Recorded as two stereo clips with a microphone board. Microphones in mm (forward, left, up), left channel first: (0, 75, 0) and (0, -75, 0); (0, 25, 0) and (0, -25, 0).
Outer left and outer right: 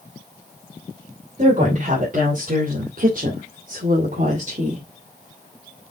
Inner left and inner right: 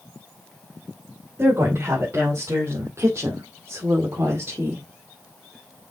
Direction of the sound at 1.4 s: 50° right (ahead or behind).